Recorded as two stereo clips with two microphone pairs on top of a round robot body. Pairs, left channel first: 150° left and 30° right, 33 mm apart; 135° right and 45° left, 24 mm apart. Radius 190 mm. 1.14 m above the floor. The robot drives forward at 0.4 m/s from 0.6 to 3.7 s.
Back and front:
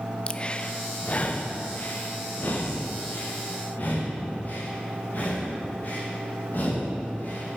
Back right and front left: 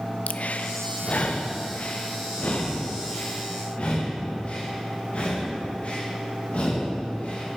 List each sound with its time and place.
0.3 s breathing: 150° right, 0.6 m; by 7.6 s 170° right, 1.7 m